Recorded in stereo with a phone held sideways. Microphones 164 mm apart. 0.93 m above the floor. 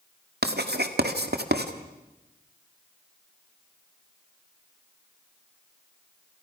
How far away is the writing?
About 1.9 m.